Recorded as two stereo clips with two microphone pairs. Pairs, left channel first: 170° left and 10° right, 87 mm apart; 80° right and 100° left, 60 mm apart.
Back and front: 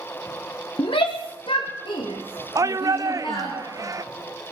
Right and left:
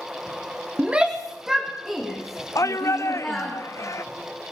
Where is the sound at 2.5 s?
60° right, 0.5 m.